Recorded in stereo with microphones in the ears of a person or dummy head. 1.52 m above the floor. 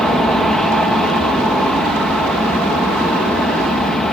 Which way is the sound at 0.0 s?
5° left (ahead or behind).